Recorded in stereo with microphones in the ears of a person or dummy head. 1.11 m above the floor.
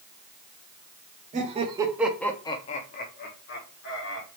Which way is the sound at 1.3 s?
30° right (ahead or behind).